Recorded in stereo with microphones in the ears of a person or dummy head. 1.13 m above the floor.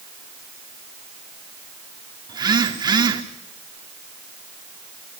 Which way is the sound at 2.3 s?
25° right (ahead or behind).